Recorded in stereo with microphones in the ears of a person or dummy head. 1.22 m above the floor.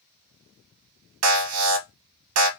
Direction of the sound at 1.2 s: 80° right.